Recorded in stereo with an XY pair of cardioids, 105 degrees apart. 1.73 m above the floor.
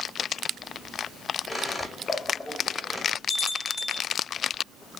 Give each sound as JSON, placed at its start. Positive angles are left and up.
{"t": 1.5, "sound": "a squeak", "azimuth_deg": 15, "distance_m": 2.0}
{"t": 3.3, "sound": "a bell", "azimuth_deg": 15, "distance_m": 2.5}